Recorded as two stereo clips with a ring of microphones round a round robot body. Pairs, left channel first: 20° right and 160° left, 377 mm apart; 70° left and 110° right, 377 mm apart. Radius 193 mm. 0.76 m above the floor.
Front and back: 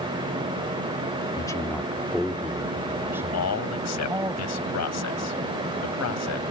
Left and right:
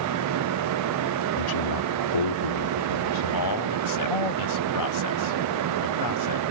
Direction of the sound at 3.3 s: 25° left.